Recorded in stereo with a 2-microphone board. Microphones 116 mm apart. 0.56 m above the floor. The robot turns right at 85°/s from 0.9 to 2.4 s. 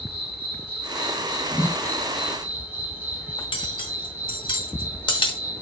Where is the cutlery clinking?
50° left (ahead or behind), 0.8 m.